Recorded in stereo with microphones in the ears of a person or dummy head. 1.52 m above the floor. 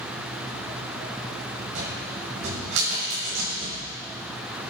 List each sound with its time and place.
1.8 s a cupboard door: 65° right (ahead or behind), 6.5 m